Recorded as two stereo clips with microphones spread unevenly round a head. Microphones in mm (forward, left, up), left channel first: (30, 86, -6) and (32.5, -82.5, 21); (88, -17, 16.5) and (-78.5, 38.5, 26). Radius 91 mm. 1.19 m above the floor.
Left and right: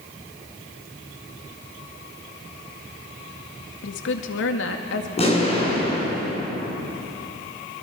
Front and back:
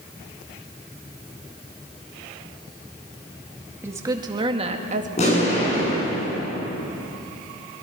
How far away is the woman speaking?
About 2 m.